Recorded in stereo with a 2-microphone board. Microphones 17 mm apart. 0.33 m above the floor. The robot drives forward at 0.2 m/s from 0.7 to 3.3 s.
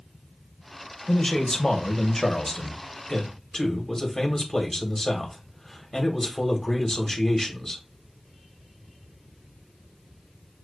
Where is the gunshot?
No gunshot in this recording.